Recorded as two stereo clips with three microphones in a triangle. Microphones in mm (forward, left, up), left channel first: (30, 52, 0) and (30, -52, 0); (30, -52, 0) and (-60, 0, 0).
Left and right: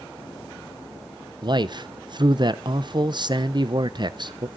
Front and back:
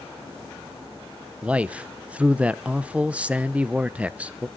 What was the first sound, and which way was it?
A man speaking, 130° right.